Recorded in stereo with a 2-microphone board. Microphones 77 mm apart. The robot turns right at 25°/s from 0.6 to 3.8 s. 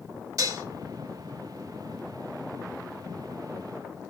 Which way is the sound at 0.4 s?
45° right (ahead or behind).